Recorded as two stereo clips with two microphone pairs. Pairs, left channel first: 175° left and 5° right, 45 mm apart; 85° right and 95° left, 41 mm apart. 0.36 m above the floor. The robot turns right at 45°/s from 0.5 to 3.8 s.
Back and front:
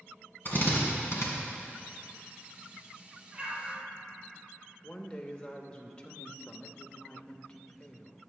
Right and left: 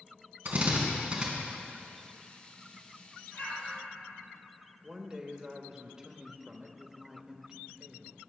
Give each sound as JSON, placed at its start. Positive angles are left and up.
{"t": 0.5, "sound": "a drill", "azimuth_deg": 135, "distance_m": 2.5}
{"t": 3.3, "sound": "an explosion", "azimuth_deg": -65, "distance_m": 2.5}
{"t": 4.8, "sound": "a woman speaking", "azimuth_deg": 155, "distance_m": 0.8}